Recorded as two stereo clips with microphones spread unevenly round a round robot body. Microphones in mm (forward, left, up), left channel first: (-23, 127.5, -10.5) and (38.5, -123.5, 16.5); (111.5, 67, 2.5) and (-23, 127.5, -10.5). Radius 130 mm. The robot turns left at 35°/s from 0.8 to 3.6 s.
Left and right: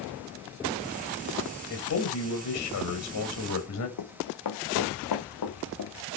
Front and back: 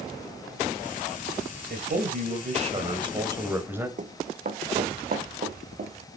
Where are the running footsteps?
120° left, 1.5 m; by 5.9 s 135° left, 3 m.